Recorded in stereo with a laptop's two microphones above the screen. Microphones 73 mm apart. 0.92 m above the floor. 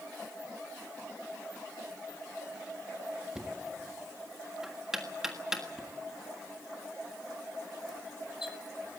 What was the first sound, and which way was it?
Knocking, 10° right (ahead or behind).